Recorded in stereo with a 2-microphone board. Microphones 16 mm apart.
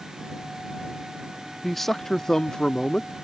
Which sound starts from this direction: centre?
A man speaking, at 1.6 s.